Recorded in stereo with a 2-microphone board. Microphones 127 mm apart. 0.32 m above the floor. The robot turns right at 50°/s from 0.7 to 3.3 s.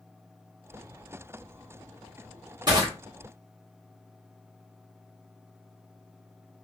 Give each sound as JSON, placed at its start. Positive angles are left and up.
{"t": 2.7, "sound": "crushing", "side_deg": -35, "distance_m": 1.3}